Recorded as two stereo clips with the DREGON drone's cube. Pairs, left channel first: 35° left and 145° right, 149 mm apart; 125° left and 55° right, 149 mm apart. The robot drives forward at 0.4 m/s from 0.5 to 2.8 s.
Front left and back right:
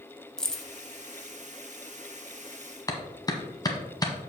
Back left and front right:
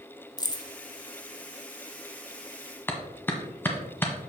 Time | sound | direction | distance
0.4 | keys jangling | 115° left | 0.9 m
2.9 | a clap | 65° left | 1.2 m